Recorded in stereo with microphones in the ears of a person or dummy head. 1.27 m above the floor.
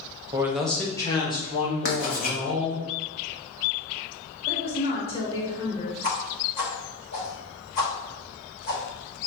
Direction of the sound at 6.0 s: 45° left (ahead or behind).